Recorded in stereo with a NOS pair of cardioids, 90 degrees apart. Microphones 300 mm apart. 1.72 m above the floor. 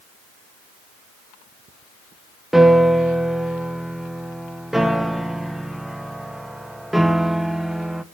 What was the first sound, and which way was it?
A piano, straight ahead.